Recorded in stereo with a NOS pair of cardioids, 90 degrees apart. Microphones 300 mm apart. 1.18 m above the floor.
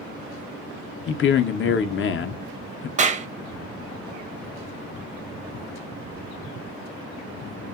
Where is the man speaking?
40° left, 0.5 m.